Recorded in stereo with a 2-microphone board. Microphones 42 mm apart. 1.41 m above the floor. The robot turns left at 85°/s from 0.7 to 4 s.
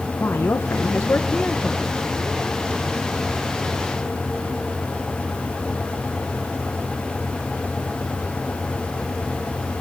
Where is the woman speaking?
95° left, 1.2 m; by 1.9 s 10° right, 1.2 m.